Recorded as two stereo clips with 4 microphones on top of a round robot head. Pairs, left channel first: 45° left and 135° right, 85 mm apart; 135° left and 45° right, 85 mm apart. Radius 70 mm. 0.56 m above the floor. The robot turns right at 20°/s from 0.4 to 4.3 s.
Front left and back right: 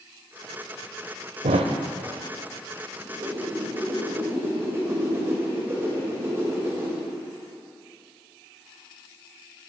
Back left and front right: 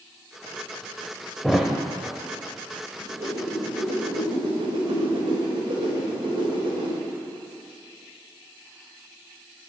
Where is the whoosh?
95° right, 2 m; by 7.0 s 70° right, 2 m.